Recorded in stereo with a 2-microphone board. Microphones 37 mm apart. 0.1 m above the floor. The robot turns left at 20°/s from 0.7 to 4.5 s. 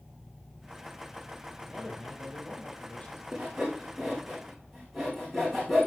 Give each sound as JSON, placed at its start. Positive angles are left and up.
{"t": 1.7, "sound": "a man speaking", "azimuth_deg": 175, "distance_m": 4.0}
{"t": 3.3, "sound": "sawing", "side_deg": -20, "distance_m": 4.0}